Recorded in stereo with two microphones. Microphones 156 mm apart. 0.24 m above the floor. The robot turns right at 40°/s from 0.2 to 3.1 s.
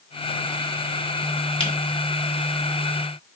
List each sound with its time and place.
1.6 s a camera shutter: 35° left (ahead or behind), 3 m; by 1.7 s 30° left (ahead or behind), 3 m